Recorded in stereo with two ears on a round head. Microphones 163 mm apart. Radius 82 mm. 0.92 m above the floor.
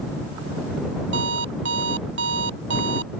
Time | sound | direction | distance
1.1 | an alarm clock | 75° right (ahead or behind) | ?